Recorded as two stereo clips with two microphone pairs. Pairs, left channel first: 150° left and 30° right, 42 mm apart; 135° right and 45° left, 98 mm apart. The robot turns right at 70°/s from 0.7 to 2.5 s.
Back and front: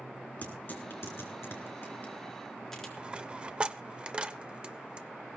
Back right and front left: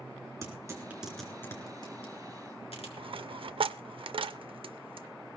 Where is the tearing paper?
105° left, 4 m; by 2.9 s 130° right, 4 m.